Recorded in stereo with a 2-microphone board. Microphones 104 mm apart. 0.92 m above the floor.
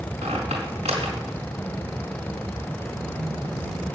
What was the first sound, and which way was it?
A squeak, 85° right.